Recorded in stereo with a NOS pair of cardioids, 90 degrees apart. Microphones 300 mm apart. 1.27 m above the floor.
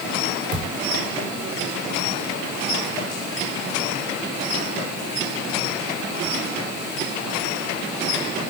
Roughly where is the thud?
Ahead right.